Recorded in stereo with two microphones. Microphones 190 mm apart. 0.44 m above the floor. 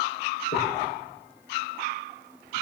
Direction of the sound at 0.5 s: 65° left (ahead or behind).